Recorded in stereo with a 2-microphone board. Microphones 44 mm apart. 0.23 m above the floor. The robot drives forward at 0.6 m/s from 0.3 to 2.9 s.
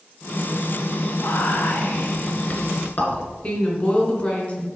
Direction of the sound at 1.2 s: 55° left (ahead or behind).